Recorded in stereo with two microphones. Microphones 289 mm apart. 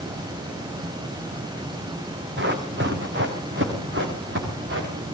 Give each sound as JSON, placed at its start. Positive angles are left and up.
{"t": 2.4, "sound": "running footsteps", "side_deg": -35, "distance_m": 4.0}